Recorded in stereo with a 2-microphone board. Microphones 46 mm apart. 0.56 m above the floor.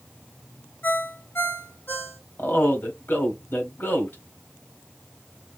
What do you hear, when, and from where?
0.8 s a ringtone: 60° left (ahead or behind), 2.5 m
2.4 s a man speaking: 55° left (ahead or behind), 2 m